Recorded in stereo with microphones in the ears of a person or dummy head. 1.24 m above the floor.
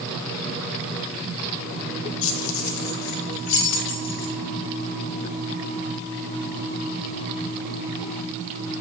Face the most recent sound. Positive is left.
turn(degrees=60)  # may be behind; listen again after turning